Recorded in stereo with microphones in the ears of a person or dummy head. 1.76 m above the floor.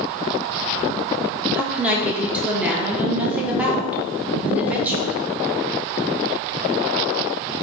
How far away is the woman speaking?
About 0.6 m.